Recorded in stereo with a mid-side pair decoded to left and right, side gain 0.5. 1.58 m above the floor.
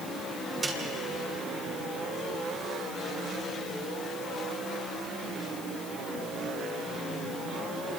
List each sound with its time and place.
0.6 s a snare drum: 25° right, 8.5 m